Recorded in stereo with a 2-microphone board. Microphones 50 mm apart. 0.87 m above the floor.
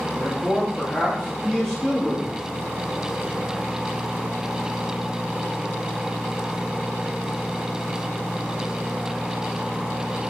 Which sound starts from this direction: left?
A man speaking, at 0.1 s.